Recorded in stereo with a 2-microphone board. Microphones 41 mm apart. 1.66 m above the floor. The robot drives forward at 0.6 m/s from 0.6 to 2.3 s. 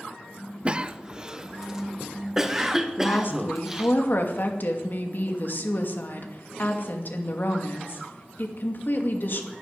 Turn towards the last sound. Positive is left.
turn(degrees=55)  # may be behind; listen again after turning